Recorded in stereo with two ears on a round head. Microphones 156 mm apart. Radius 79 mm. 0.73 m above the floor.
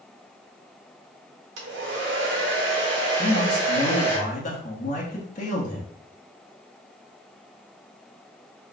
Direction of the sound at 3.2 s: 45° left (ahead or behind).